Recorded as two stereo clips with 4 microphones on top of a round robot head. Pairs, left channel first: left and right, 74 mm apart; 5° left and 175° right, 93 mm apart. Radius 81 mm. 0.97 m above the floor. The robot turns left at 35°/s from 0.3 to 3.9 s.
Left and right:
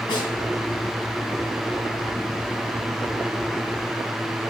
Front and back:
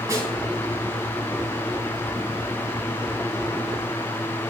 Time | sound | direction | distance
0.1 | a snare drum | 130° left | 4 m